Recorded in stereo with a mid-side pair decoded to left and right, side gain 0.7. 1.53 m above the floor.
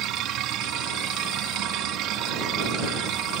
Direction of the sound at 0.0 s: 55° right.